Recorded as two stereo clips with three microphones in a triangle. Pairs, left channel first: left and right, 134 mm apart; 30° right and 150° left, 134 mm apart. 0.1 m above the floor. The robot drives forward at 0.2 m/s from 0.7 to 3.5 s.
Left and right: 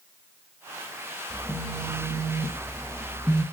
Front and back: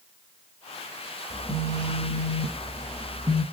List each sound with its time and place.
1.3 s a phone buzzing: 120° left, 1.5 m; by 3.4 s 140° left, 1.6 m